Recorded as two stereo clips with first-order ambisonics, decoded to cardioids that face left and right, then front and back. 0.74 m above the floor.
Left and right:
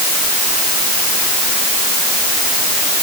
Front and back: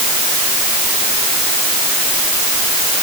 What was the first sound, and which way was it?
Only background noise.